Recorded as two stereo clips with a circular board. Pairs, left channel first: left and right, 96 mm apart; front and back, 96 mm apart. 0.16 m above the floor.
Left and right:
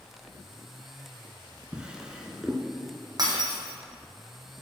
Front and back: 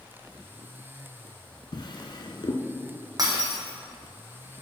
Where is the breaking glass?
135° right, 1.5 m.